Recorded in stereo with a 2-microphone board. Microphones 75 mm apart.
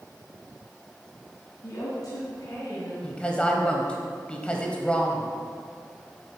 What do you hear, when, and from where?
1.6 s a woman speaking: 50° left (ahead or behind), 1.5 m; by 2.9 s 60° left (ahead or behind), 2 m
3.0 s a woman speaking: 15° left (ahead or behind), 1.0 m